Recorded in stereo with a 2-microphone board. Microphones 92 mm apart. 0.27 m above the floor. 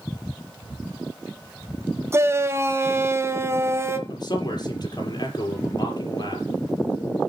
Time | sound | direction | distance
2.1 | a shout | 30° right (ahead or behind) | 1.3 m
4.1 | a man speaking | 50° left (ahead or behind) | 5.5 m